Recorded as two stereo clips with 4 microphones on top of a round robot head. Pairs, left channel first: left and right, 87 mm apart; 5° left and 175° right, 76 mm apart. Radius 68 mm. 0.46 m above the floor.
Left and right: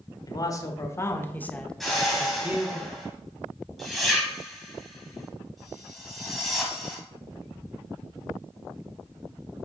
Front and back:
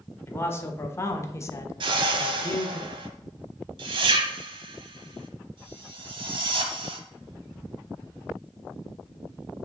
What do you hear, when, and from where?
0.3 s a man speaking: 60° left, 1.4 m; by 2.8 s 40° right, 1.1 m
1.8 s a whoosh: straight behind, 1.0 m